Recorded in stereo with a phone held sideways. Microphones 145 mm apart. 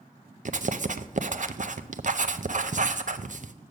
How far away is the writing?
About 0.5 m.